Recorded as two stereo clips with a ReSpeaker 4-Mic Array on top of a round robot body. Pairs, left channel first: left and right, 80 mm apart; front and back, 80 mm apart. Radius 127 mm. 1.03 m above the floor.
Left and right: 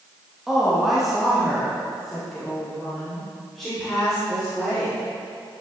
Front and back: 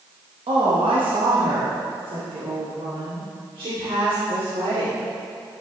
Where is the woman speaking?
175° right, 1.6 m; by 5.0 s 175° left, 4 m.